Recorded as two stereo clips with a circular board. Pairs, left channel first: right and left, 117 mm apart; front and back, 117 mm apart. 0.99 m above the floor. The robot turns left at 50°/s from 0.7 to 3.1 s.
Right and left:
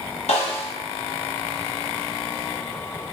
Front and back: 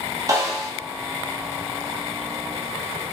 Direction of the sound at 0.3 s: 115° right.